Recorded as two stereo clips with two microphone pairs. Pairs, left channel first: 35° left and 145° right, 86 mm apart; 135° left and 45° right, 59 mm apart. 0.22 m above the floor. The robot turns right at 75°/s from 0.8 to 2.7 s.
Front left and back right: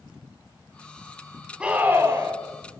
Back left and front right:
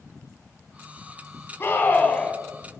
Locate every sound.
1.6 s a scream: 145° left, 1.4 m; by 2.4 s 155° right, 1.4 m